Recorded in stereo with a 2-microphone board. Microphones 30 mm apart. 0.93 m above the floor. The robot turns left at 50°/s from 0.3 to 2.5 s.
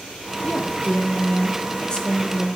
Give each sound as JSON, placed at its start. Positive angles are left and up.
{"t": 0.4, "sound": "a woman speaking", "azimuth_deg": 100, "distance_m": 1.8}